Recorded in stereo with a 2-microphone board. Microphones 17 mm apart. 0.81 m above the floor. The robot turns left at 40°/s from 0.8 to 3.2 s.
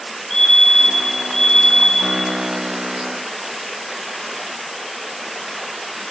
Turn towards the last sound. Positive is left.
turn(degrees=40)